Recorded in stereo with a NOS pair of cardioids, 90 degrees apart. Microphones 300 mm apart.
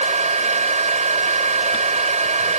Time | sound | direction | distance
0.0 | a fan | 25° right | ?